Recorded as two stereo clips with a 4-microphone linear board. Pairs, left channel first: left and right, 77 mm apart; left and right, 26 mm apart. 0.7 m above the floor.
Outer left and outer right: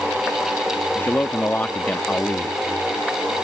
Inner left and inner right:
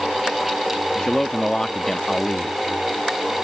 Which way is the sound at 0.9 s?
25° left (ahead or behind).